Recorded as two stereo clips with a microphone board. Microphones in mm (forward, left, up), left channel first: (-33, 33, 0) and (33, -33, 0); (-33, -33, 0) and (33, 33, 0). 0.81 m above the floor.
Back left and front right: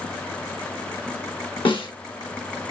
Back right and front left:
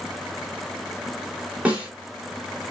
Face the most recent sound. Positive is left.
turn(degrees=120)